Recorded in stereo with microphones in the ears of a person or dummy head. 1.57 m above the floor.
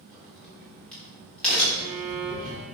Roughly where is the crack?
Centre.